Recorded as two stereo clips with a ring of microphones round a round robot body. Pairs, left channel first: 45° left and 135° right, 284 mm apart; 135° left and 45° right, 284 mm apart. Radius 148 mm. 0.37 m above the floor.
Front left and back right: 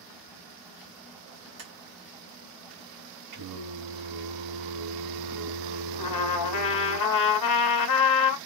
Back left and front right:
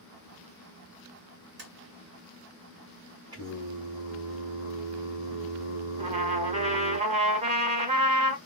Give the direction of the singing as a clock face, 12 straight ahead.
4 o'clock.